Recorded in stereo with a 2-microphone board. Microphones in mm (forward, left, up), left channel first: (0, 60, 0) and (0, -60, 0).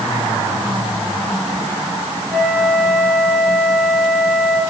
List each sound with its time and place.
2.3 s a flute: 10° left (ahead or behind), 4.5 m